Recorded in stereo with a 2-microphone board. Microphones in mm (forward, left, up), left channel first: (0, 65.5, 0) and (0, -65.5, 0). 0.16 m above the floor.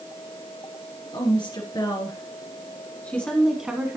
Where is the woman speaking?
40° left (ahead or behind), 2.5 m; by 4.0 s 15° right (ahead or behind), 1.3 m.